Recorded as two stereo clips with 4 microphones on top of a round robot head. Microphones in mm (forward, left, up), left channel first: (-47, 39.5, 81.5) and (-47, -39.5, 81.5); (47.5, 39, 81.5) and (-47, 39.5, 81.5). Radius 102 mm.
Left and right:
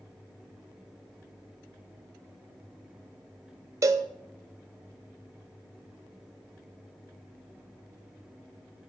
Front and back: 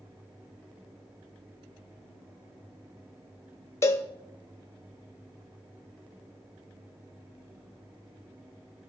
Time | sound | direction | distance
3.8 | a cowbell | 55° right | 0.7 m